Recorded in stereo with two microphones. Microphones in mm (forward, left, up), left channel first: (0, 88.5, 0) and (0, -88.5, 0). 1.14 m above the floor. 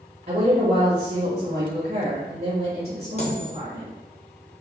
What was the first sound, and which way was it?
A woman speaking, 55° right (ahead or behind).